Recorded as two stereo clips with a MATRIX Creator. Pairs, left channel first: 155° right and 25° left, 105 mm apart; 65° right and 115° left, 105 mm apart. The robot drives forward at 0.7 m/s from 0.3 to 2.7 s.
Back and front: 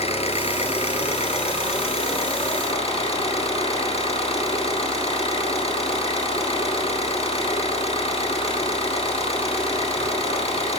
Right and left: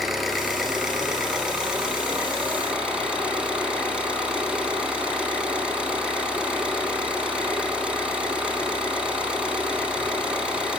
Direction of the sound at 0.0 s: 160° right.